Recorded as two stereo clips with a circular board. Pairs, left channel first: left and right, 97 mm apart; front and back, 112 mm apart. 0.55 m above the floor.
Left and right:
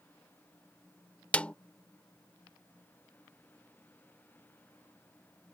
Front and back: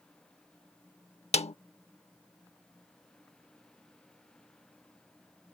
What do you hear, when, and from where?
1.3 s a snare drum: 15° left